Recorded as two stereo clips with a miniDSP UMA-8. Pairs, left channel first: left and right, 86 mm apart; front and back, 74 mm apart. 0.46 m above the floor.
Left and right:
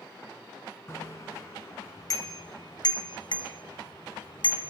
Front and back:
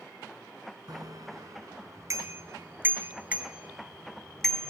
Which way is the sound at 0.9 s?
150° left.